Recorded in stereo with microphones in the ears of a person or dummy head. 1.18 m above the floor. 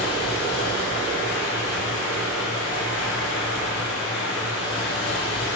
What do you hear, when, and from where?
0.0 s running water: 85° left, 1.3 m